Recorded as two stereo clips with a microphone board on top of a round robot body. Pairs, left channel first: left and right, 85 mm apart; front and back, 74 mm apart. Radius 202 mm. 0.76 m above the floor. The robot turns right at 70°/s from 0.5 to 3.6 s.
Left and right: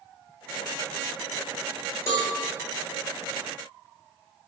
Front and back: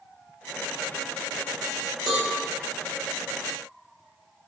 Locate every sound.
2.1 s a cowbell: 145° left, 1.0 m; by 2.3 s 160° left, 1.0 m